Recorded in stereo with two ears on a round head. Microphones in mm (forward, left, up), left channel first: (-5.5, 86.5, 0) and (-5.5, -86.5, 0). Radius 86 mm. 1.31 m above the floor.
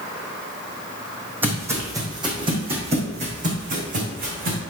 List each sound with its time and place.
1.4 s footsteps: 10° right (ahead or behind), 3 m; by 4.6 s 50° right (ahead or behind), 4 m